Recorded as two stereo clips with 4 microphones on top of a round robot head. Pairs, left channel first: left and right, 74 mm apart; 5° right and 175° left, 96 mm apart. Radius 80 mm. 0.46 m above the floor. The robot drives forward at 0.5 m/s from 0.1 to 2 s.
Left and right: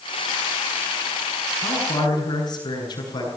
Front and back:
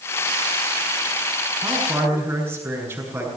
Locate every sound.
1.6 s a man speaking: 110° left, 7.5 m